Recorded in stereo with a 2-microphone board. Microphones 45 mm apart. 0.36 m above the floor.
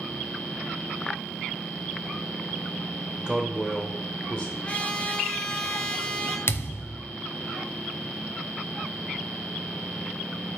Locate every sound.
3.2 s a man speaking: 20° right (ahead or behind), 0.8 m; by 4.5 s 30° left (ahead or behind), 0.9 m
4.6 s a trumpet: 30° left (ahead or behind), 1.1 m
6.5 s a thud: 60° left (ahead or behind), 0.7 m